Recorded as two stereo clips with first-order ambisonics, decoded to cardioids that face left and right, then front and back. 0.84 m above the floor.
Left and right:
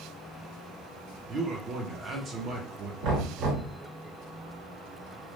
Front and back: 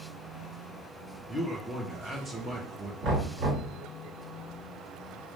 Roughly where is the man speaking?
Right.